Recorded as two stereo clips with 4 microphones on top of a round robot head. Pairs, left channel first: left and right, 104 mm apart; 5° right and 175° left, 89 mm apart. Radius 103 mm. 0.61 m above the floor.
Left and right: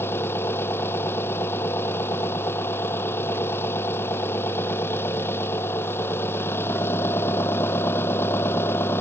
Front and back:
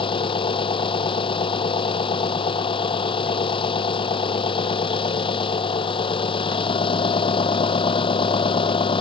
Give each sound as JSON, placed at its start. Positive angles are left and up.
{"t": 0.0, "sound": "an engine running", "azimuth_deg": 20}